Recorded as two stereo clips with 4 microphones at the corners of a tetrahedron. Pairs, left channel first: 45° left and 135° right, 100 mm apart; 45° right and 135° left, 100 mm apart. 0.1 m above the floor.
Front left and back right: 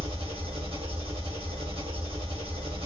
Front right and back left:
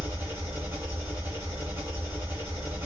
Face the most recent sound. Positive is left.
turn(degrees=-160)